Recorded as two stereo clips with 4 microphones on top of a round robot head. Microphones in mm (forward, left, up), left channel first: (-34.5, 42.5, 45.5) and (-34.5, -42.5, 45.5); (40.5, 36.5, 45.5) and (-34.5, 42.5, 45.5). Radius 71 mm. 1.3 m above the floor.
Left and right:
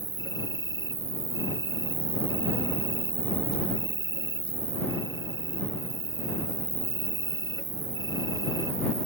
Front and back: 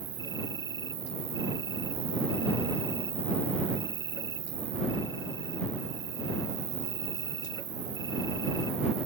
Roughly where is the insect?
Behind right.